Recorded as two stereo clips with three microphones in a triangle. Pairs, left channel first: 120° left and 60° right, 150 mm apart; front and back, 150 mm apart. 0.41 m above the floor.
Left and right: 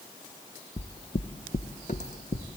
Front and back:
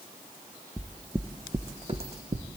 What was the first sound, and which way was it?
Footsteps, 85° left.